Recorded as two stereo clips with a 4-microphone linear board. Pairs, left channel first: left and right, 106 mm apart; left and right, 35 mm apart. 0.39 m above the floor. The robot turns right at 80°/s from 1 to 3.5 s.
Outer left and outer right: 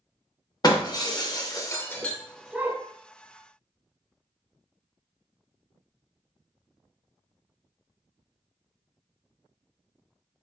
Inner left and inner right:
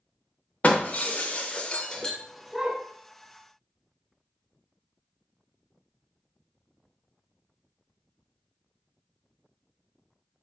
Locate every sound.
0.6 s breaking glass: 35° left (ahead or behind), 0.6 m; by 2.8 s 25° right (ahead or behind), 0.6 m